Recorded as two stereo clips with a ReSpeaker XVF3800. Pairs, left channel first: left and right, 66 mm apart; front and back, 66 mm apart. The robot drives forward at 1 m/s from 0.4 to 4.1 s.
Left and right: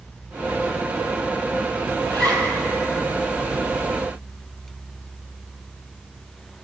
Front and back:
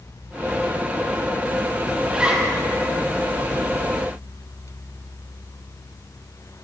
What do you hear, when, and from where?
2.0 s a zipper: 100° right, 2.5 m; by 2.5 s 110° right, 2.5 m